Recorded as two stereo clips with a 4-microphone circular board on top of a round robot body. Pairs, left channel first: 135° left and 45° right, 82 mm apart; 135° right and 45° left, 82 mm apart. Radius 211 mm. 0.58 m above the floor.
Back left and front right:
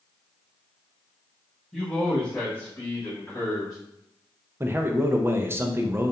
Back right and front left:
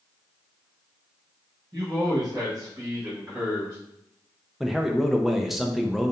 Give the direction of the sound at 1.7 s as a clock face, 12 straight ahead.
10 o'clock.